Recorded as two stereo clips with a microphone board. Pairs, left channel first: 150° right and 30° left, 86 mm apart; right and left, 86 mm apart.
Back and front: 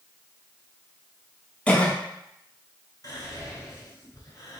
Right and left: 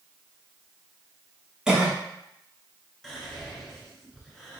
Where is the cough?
160° left, 1.1 m.